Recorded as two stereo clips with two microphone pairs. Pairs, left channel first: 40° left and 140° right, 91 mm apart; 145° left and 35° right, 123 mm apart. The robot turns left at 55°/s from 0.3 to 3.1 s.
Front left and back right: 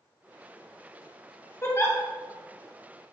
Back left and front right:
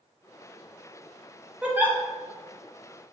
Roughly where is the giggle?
Ahead left.